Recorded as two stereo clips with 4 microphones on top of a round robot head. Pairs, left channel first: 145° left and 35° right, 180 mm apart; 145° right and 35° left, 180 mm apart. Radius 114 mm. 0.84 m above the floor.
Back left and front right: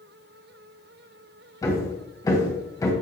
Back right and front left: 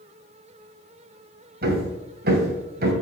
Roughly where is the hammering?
Left.